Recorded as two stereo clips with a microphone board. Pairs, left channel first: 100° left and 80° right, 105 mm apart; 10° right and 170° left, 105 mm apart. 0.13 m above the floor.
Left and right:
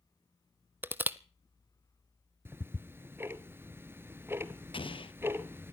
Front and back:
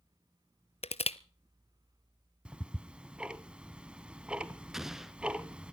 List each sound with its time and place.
0.8 s crushing: 5° right, 0.6 m
2.5 s ticking: 120° right, 0.9 m
4.7 s an explosion: 85° left, 0.8 m